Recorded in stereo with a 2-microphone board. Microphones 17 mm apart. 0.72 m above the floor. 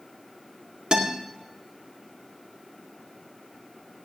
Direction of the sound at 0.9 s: 60° right (ahead or behind).